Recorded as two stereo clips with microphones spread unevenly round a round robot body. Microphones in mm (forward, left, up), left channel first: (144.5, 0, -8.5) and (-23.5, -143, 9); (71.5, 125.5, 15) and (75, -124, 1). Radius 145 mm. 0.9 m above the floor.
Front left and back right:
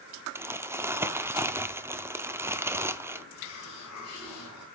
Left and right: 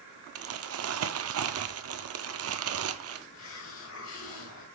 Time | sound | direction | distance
0.3 | crumpling | 65° right | 0.7 m
3.3 | a hiss | 60° left | 4 m